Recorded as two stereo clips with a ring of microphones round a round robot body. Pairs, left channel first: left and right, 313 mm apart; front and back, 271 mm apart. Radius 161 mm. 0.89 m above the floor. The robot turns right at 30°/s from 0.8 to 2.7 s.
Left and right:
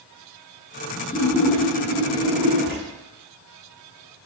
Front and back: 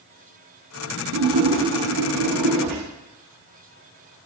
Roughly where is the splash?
Behind.